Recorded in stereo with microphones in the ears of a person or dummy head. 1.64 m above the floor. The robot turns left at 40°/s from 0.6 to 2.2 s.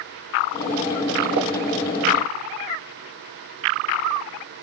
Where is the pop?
55° right (ahead or behind), 1.3 m.